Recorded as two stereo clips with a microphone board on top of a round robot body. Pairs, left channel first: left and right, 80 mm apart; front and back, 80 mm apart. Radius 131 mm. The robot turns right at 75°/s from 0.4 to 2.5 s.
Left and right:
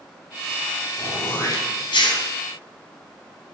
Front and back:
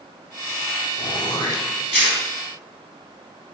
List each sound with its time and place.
1.0 s throat clearing: 5° right, 4 m; by 2.2 s 85° left, 4 m